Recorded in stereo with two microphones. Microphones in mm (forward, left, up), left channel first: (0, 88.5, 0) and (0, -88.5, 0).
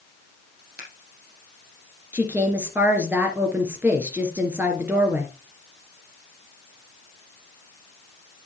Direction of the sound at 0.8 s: 70° right (ahead or behind).